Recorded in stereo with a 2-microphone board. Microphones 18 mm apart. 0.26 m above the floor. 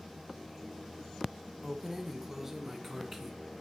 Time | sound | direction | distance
1.6 | keys jangling | 25° right (ahead or behind) | 1.1 m